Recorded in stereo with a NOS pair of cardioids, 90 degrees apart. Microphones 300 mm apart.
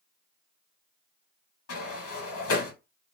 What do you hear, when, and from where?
1.7 s a sliding door: 50° left, 1.6 m